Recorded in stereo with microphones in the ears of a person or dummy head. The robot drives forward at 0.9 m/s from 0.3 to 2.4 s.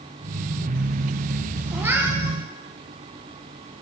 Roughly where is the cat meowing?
Centre.